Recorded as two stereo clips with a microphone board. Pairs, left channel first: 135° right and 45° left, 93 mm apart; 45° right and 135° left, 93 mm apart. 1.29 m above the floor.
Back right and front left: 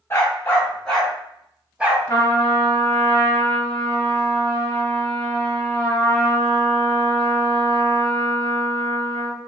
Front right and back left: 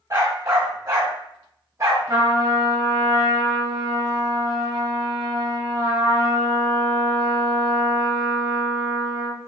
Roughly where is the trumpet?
Behind.